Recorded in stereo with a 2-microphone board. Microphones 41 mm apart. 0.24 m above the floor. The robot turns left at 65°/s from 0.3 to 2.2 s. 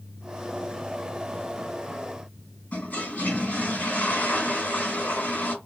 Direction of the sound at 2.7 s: 40° left (ahead or behind).